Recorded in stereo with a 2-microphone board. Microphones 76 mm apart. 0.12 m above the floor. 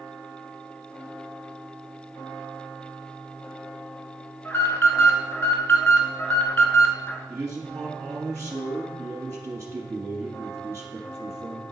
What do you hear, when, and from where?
4.5 s an alarm: 30° left (ahead or behind), 1.0 m
7.3 s a man speaking: 35° right (ahead or behind), 1.4 m